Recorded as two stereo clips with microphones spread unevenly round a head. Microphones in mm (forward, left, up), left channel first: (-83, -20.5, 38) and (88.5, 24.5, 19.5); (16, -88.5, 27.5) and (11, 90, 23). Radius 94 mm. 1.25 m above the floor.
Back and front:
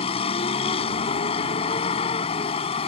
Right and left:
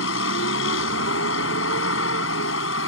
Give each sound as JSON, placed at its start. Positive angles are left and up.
{"t": 0.0, "sound": "a vehicle", "azimuth_deg": -110}